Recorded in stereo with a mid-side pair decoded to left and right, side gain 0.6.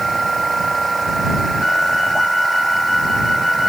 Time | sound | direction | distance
0.0 | a machine running | 15° right | ?
1.6 | a flute | 15° left | ?